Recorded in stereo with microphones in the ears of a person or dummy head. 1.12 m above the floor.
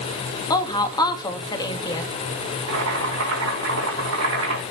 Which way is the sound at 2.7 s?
80° right.